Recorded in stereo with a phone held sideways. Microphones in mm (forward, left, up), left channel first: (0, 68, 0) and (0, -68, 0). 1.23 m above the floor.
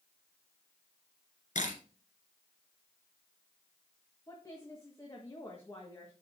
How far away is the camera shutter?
About 2.5 m.